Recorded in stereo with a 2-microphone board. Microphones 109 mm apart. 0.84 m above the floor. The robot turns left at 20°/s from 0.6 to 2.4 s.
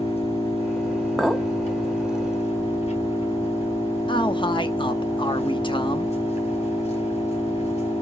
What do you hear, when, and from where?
0.0 s an engine running: 115° left, 3 m; by 8.0 s 80° left, 3 m
1.2 s a clink: 5° right (ahead or behind), 0.8 m; by 1.5 s 5° left (ahead or behind), 0.8 m
4.1 s a man speaking: 45° left (ahead or behind), 1.0 m